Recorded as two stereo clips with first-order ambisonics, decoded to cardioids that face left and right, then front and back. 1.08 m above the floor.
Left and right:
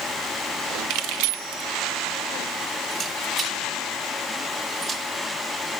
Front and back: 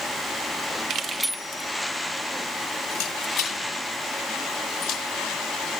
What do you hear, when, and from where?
0.9 s keys jangling: 125° right, 0.6 m; by 5.0 s 10° right, 3 m